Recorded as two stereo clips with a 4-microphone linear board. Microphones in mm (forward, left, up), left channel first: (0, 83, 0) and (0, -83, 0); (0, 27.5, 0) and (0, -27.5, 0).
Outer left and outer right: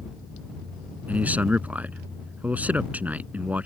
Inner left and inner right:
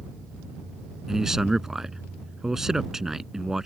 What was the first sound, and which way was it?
A man speaking, 10° right (ahead or behind).